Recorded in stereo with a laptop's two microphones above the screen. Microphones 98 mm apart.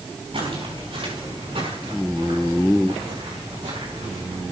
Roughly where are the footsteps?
Right.